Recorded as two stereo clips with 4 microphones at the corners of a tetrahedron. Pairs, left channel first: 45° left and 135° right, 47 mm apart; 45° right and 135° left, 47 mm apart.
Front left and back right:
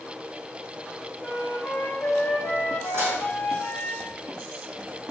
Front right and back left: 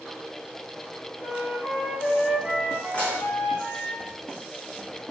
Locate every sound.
1.2 s a flute: 5° right, 2.5 m
2.9 s dishes clattering: 105° right, 3.5 m